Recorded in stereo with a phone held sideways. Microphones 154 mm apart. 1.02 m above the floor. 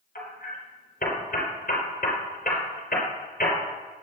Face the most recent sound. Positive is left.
turn(degrees=70)  # may be behind; listen again after turning